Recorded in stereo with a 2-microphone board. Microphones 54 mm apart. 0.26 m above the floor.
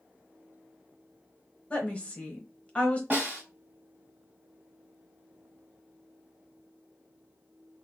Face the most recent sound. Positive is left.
turn(degrees=-30)  # may be behind; listen again after turning